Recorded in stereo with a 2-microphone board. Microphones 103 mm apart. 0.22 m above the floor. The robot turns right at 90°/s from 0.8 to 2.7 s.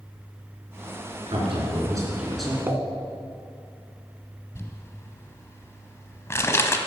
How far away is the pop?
About 0.9 m.